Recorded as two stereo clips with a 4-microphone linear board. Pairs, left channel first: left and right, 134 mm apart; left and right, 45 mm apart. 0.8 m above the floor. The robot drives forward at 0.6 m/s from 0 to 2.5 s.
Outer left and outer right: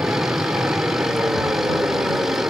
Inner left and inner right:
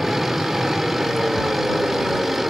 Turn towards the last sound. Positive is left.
turn(degrees=-15)  # may be behind; listen again after turning